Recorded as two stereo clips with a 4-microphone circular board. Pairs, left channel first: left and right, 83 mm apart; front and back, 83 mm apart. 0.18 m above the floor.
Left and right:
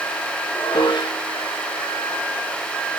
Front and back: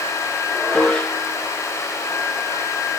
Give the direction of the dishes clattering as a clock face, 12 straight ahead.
9 o'clock.